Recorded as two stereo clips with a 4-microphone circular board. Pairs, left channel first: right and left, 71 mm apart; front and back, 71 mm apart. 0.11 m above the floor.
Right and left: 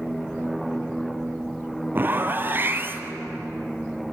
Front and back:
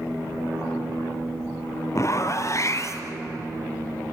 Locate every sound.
1.9 s a zipper: 35° left, 1.4 m